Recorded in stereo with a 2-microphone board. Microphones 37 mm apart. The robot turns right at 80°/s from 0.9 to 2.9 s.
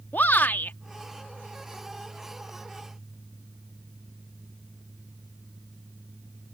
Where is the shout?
55° left (ahead or behind).